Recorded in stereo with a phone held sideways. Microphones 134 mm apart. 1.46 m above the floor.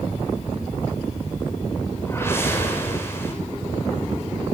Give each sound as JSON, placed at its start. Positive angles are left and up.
{"t": 2.1, "sound": "a whoosh", "side_deg": 20, "distance_m": 8.0}